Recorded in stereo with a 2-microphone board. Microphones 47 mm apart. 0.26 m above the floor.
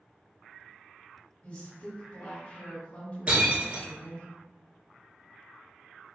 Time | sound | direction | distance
1.4 | a woman speaking | 30° left (ahead or behind) | 1.6 m
3.3 | breaking glass | 30° right (ahead or behind) | 1.2 m